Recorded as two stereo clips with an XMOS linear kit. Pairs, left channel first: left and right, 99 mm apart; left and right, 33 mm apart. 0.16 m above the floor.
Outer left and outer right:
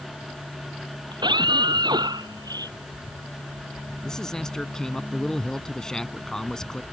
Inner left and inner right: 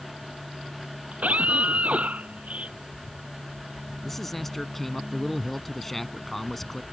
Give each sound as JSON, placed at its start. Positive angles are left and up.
{"t": 1.1, "sound": "a scream", "side_deg": -50}
{"t": 4.0, "sound": "a man speaking", "side_deg": 5}